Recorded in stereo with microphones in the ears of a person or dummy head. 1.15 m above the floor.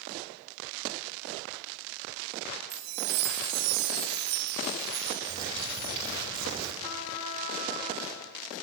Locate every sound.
2.7 s a chime: 50° right (ahead or behind), 0.6 m
5.3 s a bird: 20° right (ahead or behind), 2.0 m
6.8 s a trumpet: 25° left (ahead or behind), 0.9 m